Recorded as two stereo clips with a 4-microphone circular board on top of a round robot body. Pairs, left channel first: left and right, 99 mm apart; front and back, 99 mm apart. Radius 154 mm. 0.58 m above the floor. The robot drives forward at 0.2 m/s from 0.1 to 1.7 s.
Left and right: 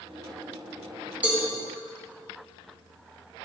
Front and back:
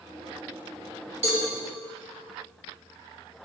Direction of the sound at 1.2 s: 165° right.